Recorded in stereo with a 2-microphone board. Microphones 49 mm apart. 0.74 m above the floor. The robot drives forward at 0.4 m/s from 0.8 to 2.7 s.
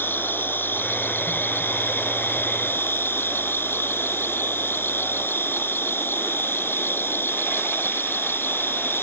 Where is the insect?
40° left (ahead or behind); by 9.0 s 45° left (ahead or behind).